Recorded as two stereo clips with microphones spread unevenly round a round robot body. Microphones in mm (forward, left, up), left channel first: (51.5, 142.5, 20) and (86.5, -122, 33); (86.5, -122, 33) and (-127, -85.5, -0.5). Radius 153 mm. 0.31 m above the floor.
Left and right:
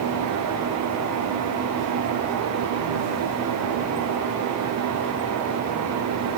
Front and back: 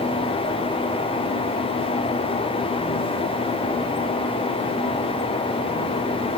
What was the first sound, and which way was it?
Only background noise.